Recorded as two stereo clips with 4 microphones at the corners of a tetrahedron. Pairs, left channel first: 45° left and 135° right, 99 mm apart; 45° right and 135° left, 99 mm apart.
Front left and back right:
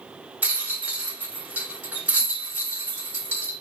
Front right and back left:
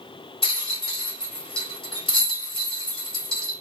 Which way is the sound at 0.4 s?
65° right.